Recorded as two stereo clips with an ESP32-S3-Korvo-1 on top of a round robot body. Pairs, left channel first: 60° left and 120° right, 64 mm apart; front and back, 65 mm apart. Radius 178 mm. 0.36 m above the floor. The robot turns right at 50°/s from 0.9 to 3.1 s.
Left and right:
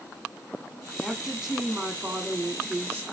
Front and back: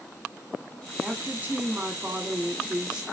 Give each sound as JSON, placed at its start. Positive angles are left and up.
{"t": 1.0, "sound": "a woman speaking", "azimuth_deg": 160, "distance_m": 1.4}